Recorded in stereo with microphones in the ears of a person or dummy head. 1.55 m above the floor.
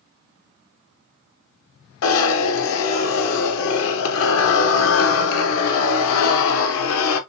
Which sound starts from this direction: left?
A zipper, at 2.0 s.